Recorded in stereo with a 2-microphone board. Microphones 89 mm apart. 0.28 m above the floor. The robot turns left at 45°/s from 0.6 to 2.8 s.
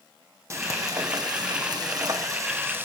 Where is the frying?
45° right, 1.7 m; by 2.9 s 145° right, 1.7 m.